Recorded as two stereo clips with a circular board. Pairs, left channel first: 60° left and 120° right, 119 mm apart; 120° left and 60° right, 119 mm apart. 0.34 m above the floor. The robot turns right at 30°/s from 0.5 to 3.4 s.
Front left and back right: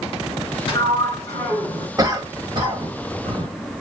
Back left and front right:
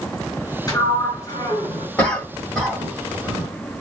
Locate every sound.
0.7 s a sliding door: 80° left, 1.9 m; by 1.9 s 115° left, 1.9 m
2.0 s a cough: straight behind, 1.3 m; by 3.5 s 135° right, 1.3 m